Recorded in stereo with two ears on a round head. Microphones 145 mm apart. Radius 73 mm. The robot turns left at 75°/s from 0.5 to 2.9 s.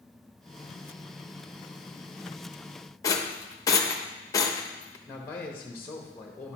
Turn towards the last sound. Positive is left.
turn(degrees=15)  # may be behind; listen again after turning